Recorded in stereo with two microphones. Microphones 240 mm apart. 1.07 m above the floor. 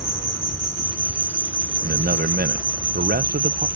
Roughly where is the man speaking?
Right.